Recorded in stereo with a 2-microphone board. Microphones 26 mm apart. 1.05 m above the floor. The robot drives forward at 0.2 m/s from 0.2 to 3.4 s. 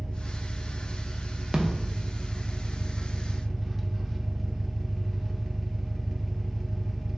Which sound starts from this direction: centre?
An engine running, at 0.0 s.